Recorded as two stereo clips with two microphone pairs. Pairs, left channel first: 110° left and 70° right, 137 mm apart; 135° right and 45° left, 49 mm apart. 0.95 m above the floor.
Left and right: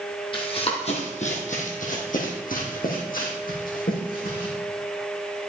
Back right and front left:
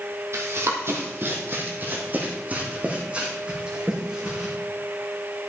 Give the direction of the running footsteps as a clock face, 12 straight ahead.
10 o'clock.